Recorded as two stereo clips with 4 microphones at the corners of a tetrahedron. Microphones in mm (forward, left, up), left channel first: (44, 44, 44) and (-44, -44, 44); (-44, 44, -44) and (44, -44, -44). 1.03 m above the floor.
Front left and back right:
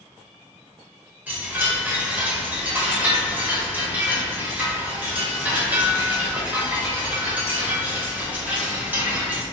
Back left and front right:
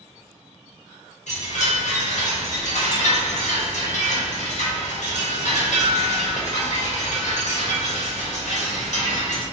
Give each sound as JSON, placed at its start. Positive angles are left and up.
{"t": 1.3, "sound": "a chime", "azimuth_deg": 150, "distance_m": 0.8}